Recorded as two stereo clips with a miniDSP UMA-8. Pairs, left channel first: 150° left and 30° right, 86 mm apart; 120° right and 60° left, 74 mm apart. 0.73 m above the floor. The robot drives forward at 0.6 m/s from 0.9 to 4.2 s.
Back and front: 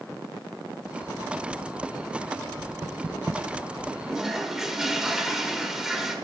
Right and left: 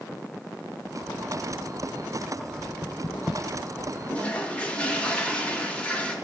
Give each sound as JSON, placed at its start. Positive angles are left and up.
{"t": 2.6, "sound": "knocking", "azimuth_deg": -60, "distance_m": 0.8}
{"t": 4.1, "sound": "a toilet flushing", "azimuth_deg": -85, "distance_m": 0.9}